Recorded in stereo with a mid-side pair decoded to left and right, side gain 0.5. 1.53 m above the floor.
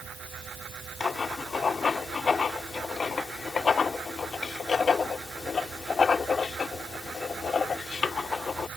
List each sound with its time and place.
0.0 s a fan: 50° right
1.0 s writing: 35° left